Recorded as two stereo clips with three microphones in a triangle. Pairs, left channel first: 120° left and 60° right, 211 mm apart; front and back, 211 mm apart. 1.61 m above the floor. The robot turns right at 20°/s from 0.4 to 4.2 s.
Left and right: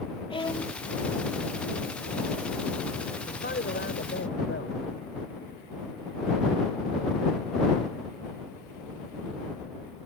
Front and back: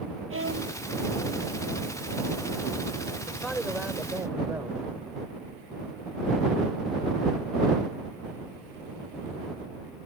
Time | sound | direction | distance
0.3 | a violin | 175° right | ?
3.3 | a man speaking | 85° left | ?